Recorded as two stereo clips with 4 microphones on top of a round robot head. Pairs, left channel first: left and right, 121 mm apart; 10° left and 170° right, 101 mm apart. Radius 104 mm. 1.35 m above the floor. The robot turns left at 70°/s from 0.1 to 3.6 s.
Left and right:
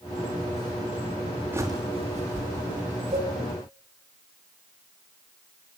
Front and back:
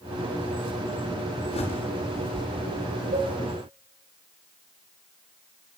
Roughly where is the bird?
Ahead.